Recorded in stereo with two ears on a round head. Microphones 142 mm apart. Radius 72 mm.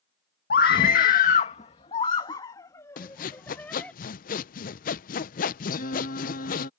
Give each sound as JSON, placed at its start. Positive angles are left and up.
{"t": 0.5, "sound": "a scream", "side_deg": 70}
{"t": 3.0, "sound": "sawing", "side_deg": 55}
{"t": 5.7, "sound": "singing", "side_deg": 60}